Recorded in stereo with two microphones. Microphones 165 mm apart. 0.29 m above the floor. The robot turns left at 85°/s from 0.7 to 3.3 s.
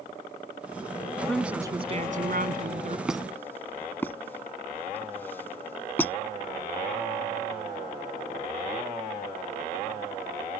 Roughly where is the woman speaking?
Ahead.